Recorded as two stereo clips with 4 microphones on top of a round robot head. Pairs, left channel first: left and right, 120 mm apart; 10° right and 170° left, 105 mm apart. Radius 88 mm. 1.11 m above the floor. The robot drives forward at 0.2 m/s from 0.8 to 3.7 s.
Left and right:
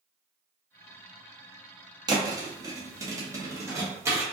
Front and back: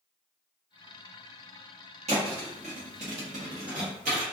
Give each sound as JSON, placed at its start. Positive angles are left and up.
{"t": 2.1, "sound": "a thud", "azimuth_deg": -145, "distance_m": 0.7}